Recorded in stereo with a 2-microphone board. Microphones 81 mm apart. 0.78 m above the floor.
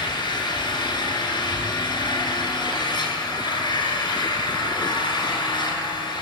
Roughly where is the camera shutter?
I don't hear a camera shutter.